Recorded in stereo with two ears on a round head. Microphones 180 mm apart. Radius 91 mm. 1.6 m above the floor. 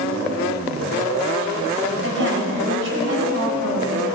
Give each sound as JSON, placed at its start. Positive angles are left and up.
{"t": 2.0, "sound": "a woman speaking", "side_deg": -65, "distance_m": 7.0}